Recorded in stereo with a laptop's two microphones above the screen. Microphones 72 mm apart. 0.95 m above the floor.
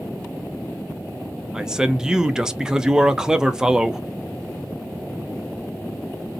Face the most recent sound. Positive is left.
turn(degrees=-10)  # may be behind; listen again after turning